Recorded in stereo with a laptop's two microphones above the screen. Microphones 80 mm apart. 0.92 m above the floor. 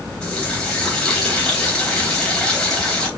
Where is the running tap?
10° left (ahead or behind), 3.5 m.